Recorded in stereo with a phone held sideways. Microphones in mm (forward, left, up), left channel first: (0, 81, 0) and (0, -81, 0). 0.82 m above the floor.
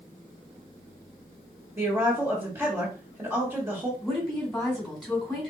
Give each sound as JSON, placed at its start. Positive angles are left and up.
{"t": 1.8, "sound": "a woman speaking", "side_deg": -20, "distance_m": 1.7}
{"t": 4.0, "sound": "a woman speaking", "side_deg": 5, "distance_m": 3.0}